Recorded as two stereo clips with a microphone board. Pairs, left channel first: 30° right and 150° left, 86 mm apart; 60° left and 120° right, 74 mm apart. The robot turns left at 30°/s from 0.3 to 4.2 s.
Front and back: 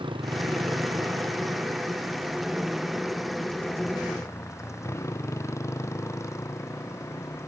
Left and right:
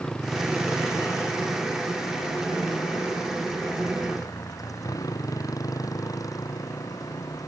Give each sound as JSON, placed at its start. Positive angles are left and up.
{"t": 0.0, "sound": "a motorcycle", "azimuth_deg": 140}